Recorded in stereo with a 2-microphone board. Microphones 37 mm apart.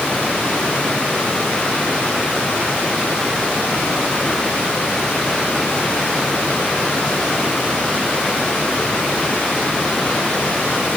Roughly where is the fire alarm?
No fire alarm in this recording.